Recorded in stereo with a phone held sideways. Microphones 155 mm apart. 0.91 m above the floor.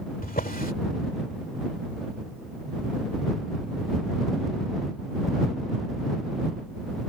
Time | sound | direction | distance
0.2 | a drawer | 70° left (ahead or behind) | ?